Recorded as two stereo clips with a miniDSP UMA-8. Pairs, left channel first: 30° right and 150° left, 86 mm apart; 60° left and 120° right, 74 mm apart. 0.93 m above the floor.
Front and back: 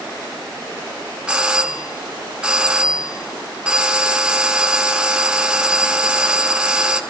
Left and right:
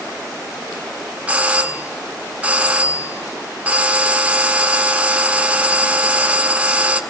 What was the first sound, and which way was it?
A doorbell, 150° right.